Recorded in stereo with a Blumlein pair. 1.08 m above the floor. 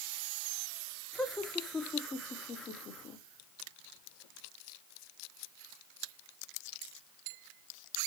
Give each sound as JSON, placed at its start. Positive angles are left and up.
{"t": 1.1, "sound": "laughter", "azimuth_deg": 5, "distance_m": 3.0}